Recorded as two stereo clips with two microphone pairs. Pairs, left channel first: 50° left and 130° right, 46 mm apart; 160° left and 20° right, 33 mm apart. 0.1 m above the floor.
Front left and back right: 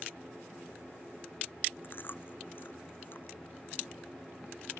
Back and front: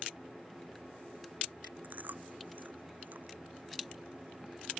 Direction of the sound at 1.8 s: 5° left.